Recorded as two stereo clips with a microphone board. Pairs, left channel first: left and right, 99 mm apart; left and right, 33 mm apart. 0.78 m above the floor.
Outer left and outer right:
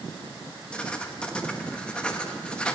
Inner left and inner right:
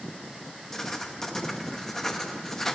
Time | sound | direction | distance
0.7 | writing | 10° left (ahead or behind) | 0.9 m